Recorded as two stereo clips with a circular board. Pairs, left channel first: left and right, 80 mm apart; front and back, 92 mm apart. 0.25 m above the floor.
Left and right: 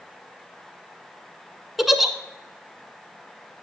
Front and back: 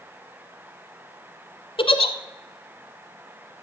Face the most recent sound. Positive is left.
turn(degrees=-5)